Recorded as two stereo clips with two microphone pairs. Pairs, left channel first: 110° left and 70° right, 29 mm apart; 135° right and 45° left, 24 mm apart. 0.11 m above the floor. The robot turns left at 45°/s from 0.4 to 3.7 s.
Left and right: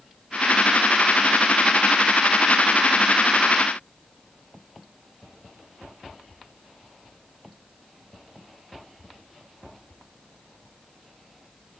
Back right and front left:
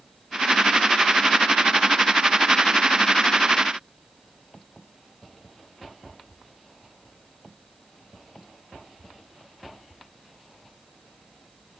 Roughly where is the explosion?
No explosion in this recording.